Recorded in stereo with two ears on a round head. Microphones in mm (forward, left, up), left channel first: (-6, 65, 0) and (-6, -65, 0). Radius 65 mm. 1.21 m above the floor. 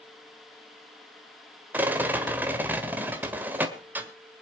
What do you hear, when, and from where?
1.7 s a rattle: 10° right (ahead or behind), 1.6 m